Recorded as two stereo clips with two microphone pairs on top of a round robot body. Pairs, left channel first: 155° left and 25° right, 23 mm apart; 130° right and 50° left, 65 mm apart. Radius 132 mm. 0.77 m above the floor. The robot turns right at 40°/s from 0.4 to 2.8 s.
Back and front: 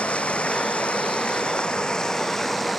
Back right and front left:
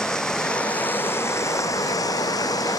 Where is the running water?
150° left; by 2.8 s 115° right.